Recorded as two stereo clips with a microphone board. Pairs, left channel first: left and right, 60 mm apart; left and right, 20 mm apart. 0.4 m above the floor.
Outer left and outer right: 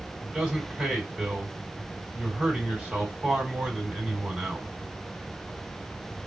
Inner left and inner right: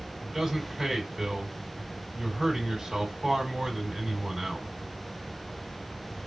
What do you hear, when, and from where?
0.2 s a man speaking: 15° right (ahead or behind), 2 m